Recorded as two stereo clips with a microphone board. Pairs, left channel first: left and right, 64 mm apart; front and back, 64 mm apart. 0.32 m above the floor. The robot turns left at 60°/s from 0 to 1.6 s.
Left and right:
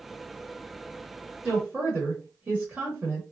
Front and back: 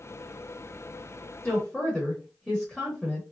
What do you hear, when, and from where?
1.4 s a woman speaking: 60° right, 1.0 m; by 3.2 s 70° right, 1.0 m